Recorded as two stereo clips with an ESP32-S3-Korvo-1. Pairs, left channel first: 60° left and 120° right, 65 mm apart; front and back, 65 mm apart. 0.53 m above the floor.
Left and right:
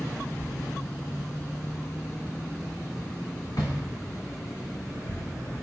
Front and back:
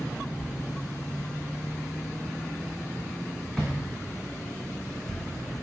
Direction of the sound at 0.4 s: 90° left.